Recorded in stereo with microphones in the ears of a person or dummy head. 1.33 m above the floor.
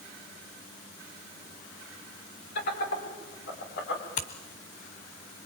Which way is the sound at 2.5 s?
60° left (ahead or behind).